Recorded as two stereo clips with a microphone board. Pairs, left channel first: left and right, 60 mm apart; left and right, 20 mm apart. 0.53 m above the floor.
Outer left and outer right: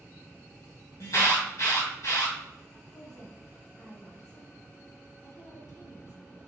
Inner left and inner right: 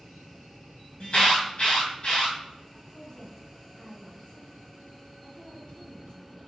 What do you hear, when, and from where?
1.0 s an alarm: 65° left (ahead or behind), 2.5 m
2.9 s a woman speaking: 60° left (ahead or behind), 2.5 m